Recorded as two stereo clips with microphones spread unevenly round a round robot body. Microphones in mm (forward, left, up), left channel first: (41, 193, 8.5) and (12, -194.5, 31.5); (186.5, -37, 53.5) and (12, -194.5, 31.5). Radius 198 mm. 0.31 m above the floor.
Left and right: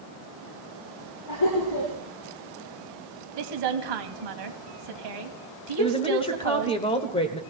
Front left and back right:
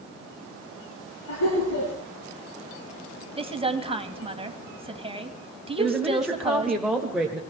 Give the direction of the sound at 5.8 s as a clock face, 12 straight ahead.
7 o'clock.